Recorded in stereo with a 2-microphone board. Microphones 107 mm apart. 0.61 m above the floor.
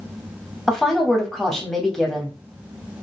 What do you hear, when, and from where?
0.7 s a woman speaking: centre (ahead or behind), 1.3 m